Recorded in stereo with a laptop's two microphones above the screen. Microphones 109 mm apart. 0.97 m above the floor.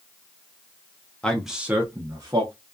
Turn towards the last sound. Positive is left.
turn(degrees=-40)  # may be behind; listen again after turning